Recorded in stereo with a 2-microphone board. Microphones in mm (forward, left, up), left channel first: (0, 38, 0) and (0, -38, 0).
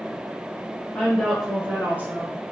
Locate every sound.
0.9 s a woman speaking: 10° left (ahead or behind), 1.1 m; by 2.3 s 30° right (ahead or behind), 1.3 m